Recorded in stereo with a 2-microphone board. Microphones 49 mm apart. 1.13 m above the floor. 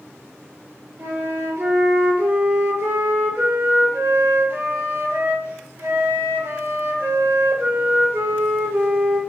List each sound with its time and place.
1.0 s a flute: 70° right (ahead or behind), 1.0 m